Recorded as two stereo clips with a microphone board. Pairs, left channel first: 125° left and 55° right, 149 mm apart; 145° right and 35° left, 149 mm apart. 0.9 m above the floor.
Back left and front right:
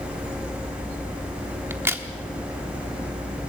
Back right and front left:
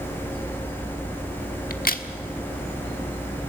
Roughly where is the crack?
Behind right.